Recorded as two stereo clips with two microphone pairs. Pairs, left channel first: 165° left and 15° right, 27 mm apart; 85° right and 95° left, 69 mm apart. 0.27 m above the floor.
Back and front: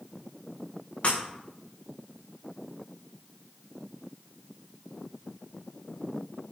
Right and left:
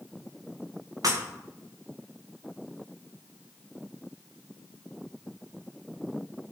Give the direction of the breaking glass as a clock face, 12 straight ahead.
8 o'clock.